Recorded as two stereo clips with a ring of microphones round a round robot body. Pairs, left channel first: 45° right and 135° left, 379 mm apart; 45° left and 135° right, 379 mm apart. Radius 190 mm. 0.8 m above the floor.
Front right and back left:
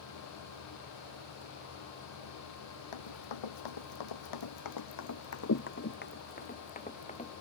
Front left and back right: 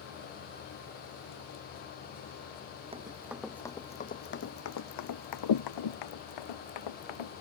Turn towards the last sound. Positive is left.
turn(degrees=30)